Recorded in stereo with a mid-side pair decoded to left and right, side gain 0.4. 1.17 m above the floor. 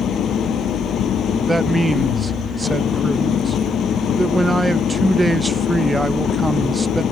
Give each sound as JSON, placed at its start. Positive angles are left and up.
{"t": 0.0, "sound": "an engine running", "azimuth_deg": 65}
{"t": 1.5, "sound": "a man speaking", "azimuth_deg": -25}